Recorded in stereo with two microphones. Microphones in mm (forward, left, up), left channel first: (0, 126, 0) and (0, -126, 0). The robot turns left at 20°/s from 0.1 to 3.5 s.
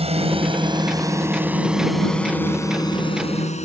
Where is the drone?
25° right (ahead or behind); by 3.6 s 25° left (ahead or behind).